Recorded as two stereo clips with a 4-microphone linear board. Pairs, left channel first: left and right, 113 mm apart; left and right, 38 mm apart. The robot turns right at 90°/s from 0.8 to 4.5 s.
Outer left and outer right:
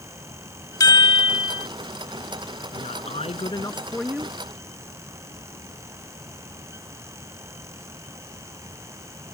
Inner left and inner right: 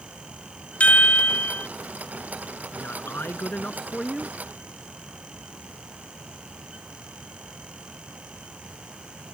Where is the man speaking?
60° left; by 4.3 s 155° right.